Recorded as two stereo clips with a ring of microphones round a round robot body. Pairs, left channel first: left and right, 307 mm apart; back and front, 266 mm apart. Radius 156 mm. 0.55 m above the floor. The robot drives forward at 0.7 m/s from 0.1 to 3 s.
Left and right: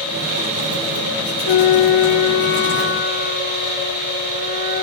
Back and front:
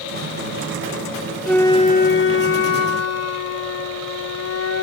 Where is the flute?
90° left; by 4.8 s 150° left.